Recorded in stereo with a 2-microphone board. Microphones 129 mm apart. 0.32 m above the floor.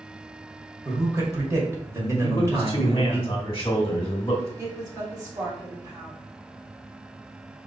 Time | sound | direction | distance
0.8 | a man speaking | 25° right (ahead or behind) | 1.2 m
2.2 | a man speaking | 25° left (ahead or behind) | 1.0 m
4.6 | a woman speaking | 30° right (ahead or behind) | 2.5 m